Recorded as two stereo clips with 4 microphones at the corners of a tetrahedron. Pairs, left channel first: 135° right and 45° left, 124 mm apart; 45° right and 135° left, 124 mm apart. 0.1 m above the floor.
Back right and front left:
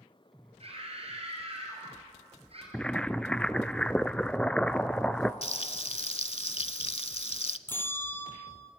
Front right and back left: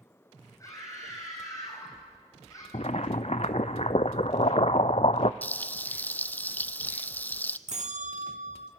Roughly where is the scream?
Ahead.